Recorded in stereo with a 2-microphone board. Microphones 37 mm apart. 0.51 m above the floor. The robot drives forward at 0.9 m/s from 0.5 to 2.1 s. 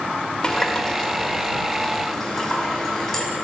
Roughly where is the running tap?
Left.